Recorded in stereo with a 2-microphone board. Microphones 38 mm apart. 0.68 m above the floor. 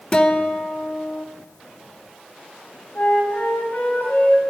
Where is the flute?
55° left (ahead or behind), 5 m.